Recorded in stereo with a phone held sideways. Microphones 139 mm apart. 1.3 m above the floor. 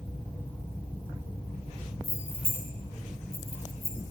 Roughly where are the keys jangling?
Right.